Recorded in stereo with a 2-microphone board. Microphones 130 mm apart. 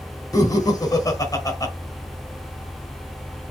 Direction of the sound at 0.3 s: 30° left (ahead or behind).